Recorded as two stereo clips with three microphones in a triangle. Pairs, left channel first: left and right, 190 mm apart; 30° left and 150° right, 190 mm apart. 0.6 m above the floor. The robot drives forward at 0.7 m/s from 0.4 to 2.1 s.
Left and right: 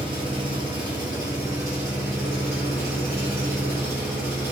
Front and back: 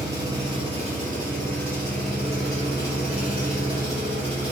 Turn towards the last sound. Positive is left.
turn(degrees=-165)